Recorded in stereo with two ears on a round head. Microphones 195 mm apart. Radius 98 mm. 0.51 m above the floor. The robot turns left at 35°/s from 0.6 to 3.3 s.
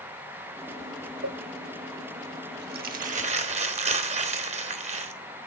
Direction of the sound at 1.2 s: 55° right (ahead or behind).